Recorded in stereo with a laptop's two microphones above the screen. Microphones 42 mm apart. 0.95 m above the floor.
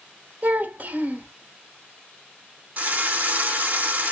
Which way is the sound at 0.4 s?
40° right (ahead or behind).